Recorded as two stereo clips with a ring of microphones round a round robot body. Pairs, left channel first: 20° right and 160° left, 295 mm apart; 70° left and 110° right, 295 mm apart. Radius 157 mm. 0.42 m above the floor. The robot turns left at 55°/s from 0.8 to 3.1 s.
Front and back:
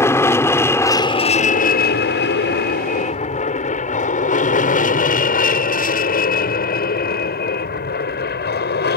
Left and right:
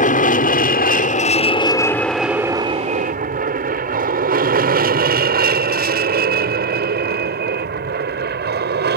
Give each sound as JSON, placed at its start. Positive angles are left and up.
{"t": 0.0, "sound": "an aircraft", "azimuth_deg": 50}